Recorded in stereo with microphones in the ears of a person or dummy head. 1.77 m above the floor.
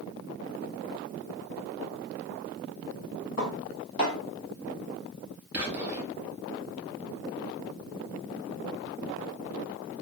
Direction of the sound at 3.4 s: 40° left (ahead or behind).